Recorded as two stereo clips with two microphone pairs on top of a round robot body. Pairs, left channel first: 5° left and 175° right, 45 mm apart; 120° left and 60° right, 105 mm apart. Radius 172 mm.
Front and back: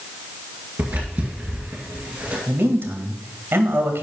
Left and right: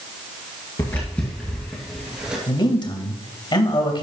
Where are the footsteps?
Straight behind, 1.9 m; by 2.4 s 140° right, 2.5 m.